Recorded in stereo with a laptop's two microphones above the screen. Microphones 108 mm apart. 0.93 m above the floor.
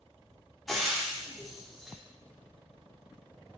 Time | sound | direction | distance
0.7 | frying | centre (ahead or behind) | 0.5 m